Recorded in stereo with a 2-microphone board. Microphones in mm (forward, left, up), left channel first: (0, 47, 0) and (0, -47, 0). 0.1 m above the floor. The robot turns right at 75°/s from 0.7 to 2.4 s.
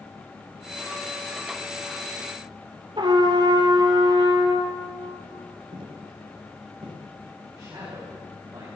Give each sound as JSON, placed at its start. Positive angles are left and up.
{"t": 3.0, "sound": "a trumpet", "side_deg": -55, "distance_m": 1.8}
{"t": 5.7, "sound": "footsteps", "side_deg": -55, "distance_m": 4.0}
{"t": 7.5, "sound": "a man speaking", "side_deg": -40, "distance_m": 6.5}